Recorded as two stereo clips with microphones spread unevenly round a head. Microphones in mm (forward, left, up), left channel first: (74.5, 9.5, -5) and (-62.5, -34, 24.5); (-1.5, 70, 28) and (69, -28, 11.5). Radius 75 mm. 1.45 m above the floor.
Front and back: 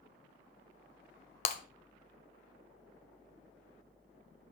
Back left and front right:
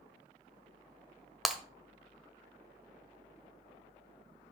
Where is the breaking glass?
45° left, 1.4 m.